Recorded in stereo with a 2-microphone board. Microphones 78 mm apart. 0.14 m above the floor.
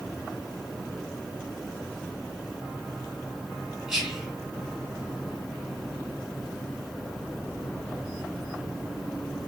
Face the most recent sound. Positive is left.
turn(degrees=-10)  # may be behind; listen again after turning